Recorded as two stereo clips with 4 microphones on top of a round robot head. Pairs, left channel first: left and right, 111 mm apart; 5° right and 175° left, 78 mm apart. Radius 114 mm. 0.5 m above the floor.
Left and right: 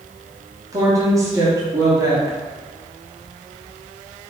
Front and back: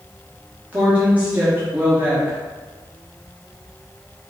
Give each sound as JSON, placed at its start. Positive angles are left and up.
{"t": 0.7, "sound": "a woman speaking", "azimuth_deg": -130, "distance_m": 1.3}